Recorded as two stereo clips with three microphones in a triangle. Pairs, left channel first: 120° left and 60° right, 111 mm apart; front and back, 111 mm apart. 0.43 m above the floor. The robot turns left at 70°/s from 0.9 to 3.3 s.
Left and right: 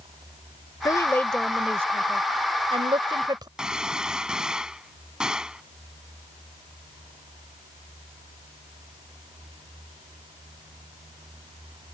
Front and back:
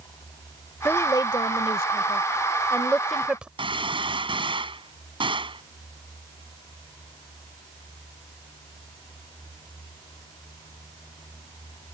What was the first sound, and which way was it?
A woman speaking, 70° left.